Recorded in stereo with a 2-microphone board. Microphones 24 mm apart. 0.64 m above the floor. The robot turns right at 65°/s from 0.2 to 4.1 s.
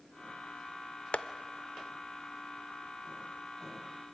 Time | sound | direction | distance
1.1 | tapping | 55° left (ahead or behind) | 0.5 m